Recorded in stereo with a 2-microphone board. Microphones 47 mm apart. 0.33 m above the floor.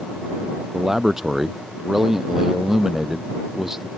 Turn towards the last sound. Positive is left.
turn(degrees=-10)  # may be behind; listen again after turning